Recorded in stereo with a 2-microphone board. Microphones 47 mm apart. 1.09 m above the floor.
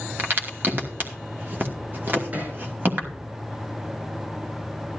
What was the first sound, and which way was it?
A crack, 45° right (ahead or behind).